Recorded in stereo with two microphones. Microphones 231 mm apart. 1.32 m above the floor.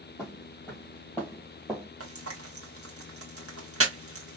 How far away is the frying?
About 1.2 m.